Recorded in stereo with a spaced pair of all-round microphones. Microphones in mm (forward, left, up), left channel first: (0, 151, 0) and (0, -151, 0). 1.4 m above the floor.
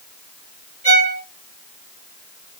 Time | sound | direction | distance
0.8 | a violin | 20° right (ahead or behind) | 2 m